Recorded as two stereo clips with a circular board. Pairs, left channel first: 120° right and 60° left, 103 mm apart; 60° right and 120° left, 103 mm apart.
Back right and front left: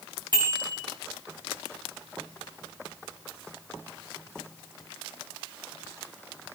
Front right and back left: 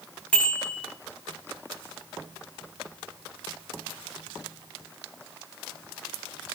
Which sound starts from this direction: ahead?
A bicycle bell, at 0.3 s.